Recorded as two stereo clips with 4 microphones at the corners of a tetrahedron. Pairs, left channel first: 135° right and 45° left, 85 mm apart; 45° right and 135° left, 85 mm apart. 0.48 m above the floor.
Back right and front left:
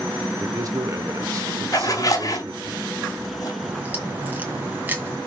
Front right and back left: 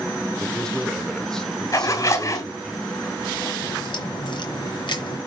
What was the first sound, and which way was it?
A man speaking, 35° left.